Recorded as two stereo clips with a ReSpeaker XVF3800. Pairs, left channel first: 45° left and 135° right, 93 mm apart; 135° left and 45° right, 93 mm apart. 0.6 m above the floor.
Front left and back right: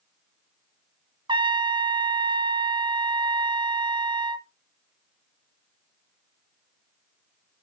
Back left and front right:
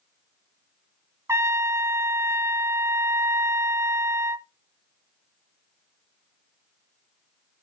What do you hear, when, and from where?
1.3 s a trumpet: 105° right, 0.8 m